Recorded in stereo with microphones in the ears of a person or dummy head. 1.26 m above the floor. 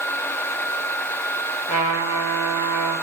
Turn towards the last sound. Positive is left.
turn(degrees=45)  # may be behind; listen again after turning